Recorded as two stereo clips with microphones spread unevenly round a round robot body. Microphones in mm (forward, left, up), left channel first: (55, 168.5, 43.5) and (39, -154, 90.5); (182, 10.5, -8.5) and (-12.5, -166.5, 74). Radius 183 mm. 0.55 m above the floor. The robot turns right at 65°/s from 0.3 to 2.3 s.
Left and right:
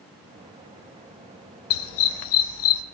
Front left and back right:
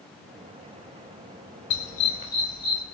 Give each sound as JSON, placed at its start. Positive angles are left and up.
{"t": 1.7, "sound": "a dog barking", "azimuth_deg": 85, "distance_m": 0.7}